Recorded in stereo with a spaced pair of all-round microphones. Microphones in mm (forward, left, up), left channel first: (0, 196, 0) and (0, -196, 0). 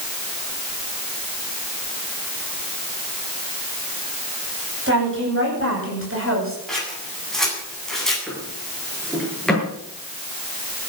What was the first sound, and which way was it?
A woman speaking, 30° right (ahead or behind).